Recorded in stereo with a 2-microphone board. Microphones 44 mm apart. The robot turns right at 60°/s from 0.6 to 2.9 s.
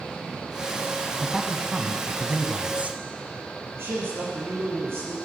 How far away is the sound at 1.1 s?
About 1.1 m.